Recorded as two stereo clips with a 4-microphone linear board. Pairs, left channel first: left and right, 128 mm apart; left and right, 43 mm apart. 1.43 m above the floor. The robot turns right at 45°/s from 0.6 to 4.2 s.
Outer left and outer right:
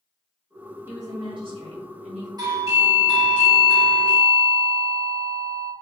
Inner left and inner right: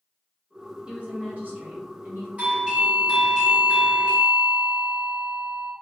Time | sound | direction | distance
0.9 | a woman speaking | 160° right | 1.2 m
2.4 | a doorbell | 35° right | 1.3 m